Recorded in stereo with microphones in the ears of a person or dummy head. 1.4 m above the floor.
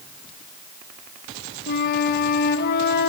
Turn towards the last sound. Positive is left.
turn(degrees=60)  # may be behind; listen again after turning